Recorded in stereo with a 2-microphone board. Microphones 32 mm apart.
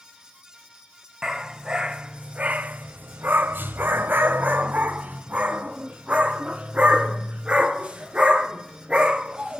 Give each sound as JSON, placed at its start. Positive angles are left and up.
{"t": 1.2, "sound": "a dog barking", "side_deg": -15, "distance_m": 1.3}